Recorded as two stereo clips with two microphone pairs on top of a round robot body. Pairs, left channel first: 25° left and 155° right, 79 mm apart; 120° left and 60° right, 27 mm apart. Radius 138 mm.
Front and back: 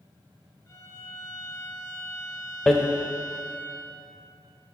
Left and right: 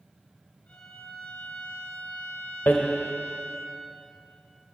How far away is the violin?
About 2 m.